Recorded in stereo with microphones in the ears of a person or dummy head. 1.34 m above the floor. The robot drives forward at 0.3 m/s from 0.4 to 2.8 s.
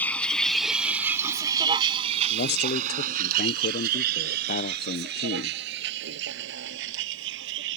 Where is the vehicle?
15° left (ahead or behind); by 7.8 s 75° right (ahead or behind).